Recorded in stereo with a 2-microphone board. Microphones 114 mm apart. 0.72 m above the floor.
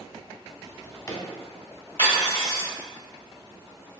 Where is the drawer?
30° left (ahead or behind), 0.9 m.